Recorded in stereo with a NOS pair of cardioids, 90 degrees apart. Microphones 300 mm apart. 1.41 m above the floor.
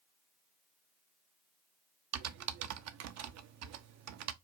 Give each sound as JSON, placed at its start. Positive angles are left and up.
{"t": 2.1, "sound": "typing on a keyboard", "azimuth_deg": -60, "distance_m": 0.5}